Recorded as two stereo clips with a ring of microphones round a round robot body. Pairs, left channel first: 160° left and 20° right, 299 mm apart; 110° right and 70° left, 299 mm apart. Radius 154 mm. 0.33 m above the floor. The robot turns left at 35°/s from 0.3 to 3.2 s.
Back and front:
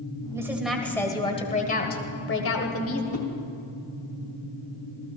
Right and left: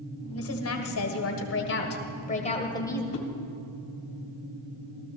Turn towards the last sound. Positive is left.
turn(degrees=-85)